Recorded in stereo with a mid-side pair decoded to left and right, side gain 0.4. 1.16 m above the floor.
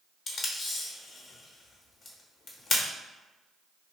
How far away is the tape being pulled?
About 0.9 m.